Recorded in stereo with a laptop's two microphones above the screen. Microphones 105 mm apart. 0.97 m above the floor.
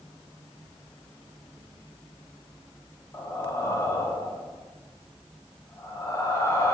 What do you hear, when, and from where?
3.1 s breathing: 25° left (ahead or behind), 0.6 m